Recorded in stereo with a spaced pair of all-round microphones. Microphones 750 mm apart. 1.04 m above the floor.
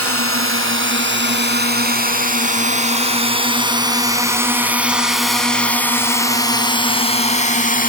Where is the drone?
15° right (ahead or behind); by 7.9 s 10° left (ahead or behind).